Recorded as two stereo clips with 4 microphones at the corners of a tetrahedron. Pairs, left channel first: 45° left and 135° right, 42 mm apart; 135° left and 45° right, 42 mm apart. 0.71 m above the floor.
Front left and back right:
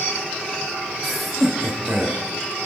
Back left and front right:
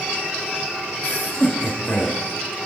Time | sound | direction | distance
1.0 | laughter | 130° left | 1.0 m